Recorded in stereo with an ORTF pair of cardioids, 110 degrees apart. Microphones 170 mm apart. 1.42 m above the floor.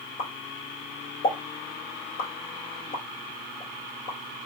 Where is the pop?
55° left, 1.6 m.